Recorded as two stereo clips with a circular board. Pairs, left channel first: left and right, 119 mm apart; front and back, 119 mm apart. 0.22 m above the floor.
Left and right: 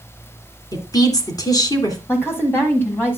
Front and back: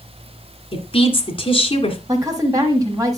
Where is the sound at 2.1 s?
145° left, 1.4 m.